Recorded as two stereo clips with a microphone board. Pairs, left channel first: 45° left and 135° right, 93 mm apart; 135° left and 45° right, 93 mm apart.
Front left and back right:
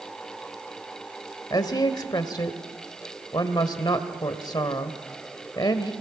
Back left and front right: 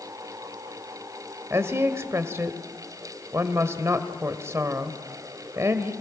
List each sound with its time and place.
1.5 s a woman speaking: 10° left, 1.7 m